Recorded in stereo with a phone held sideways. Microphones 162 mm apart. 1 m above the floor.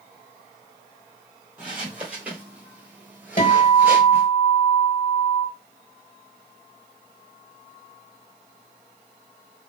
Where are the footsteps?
5° right (ahead or behind), 1.5 m; by 4.3 s 10° right (ahead or behind), 1.1 m.